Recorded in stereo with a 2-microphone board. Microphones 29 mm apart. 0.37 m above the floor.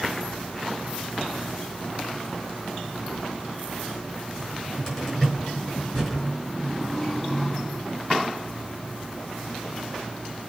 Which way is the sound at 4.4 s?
10° left (ahead or behind).